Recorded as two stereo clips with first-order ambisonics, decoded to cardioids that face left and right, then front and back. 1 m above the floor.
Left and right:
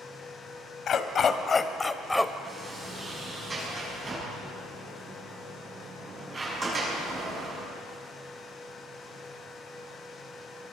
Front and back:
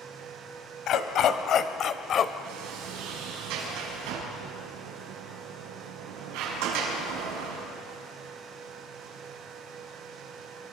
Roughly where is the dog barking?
Ahead left.